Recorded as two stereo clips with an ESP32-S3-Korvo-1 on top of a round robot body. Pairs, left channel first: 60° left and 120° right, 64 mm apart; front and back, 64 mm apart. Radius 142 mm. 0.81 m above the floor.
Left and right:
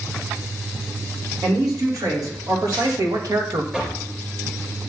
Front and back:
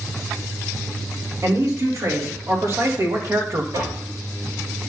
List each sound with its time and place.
1.4 s a man speaking: 140° right, 4 m
3.7 s knocking: 165° left, 4 m